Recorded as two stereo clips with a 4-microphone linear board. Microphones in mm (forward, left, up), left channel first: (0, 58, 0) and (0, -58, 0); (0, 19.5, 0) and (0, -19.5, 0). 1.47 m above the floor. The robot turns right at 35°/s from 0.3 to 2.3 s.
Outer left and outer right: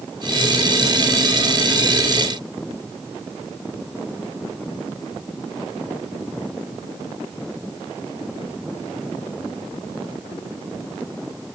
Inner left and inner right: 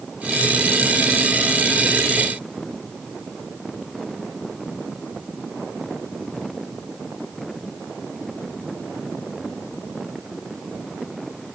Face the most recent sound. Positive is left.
No sound to turn to.